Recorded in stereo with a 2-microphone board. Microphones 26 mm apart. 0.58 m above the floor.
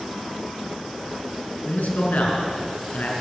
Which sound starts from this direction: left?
A man speaking, at 1.6 s.